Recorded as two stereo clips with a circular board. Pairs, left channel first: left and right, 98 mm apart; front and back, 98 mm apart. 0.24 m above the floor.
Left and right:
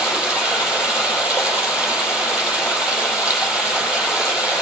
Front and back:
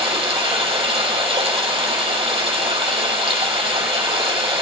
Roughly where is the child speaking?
No child speaking in this recording.